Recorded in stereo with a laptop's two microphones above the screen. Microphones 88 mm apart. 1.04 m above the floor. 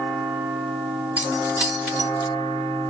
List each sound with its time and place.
1.2 s keys jangling: 20° right (ahead or behind), 2 m